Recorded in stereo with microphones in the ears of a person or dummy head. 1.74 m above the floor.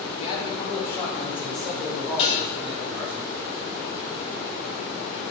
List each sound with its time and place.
0.2 s a man speaking: 35° left (ahead or behind), 3 m; by 3.2 s 10° right (ahead or behind), 6 m
2.2 s dishes clattering: 30° left (ahead or behind), 2 m